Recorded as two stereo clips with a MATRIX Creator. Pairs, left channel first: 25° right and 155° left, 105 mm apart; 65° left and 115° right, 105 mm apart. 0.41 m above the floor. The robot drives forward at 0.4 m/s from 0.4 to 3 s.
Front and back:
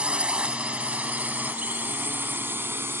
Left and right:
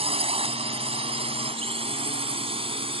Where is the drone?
125° right; by 3.0 s 135° right.